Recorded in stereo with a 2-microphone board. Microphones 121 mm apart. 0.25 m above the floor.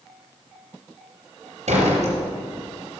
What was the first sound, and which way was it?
A door slam, 75° right (ahead or behind).